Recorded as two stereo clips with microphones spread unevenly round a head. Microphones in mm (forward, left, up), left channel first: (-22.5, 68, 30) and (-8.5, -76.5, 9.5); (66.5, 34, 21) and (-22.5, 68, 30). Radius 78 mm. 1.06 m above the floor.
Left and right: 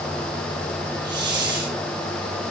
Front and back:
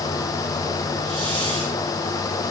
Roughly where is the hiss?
Behind right.